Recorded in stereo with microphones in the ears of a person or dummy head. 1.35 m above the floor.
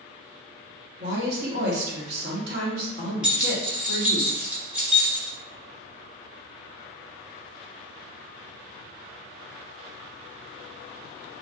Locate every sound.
1.0 s a woman speaking: 60° right (ahead or behind), 1.2 m
3.2 s keys jangling: 5° right (ahead or behind), 1.2 m